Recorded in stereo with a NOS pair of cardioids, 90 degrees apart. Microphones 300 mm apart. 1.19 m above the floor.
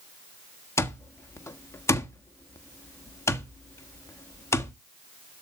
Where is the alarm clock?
10° left, 1.4 m.